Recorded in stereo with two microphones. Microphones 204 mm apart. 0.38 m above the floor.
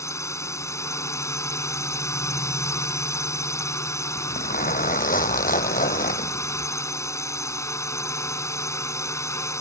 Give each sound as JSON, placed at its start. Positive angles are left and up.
{"t": 0.0, "sound": "a drone", "side_deg": 15}
{"t": 4.2, "sound": "a zipper", "side_deg": 40}